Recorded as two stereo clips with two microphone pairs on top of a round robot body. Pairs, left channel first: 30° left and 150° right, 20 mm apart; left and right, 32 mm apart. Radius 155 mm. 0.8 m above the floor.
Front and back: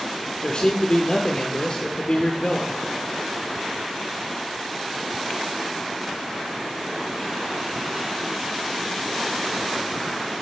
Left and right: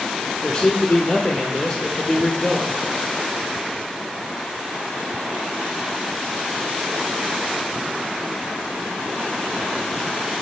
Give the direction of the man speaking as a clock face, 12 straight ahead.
12 o'clock.